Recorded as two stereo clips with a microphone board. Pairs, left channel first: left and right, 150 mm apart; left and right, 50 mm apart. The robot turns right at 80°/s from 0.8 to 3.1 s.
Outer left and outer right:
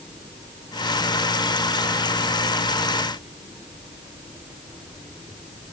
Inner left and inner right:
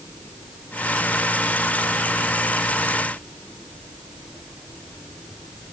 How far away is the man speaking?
No man speaking in this recording.